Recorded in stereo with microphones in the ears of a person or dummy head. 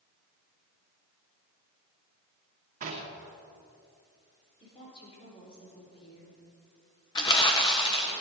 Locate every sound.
2.8 s knocking: 45° right (ahead or behind), 2.5 m
4.6 s a woman speaking: 30° left (ahead or behind), 4.5 m
7.2 s crumpling: 25° left (ahead or behind), 1.5 m